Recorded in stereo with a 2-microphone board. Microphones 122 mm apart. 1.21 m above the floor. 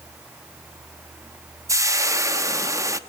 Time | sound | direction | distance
1.7 | frying | 25° right (ahead or behind) | 0.9 m